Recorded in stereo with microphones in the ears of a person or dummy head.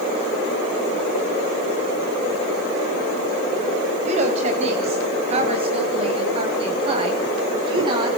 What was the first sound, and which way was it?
A woman speaking, 40° right (ahead or behind).